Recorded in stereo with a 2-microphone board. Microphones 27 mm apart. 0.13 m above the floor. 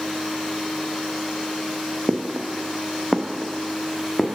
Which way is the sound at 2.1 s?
65° right (ahead or behind).